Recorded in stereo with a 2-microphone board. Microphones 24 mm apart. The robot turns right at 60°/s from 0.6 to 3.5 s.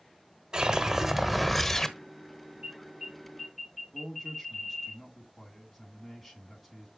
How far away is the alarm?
About 5 m.